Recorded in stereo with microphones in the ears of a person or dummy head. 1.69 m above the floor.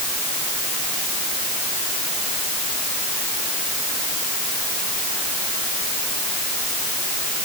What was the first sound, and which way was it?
Only background noise.